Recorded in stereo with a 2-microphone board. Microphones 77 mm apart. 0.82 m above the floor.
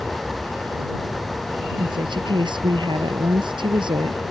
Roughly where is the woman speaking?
Right.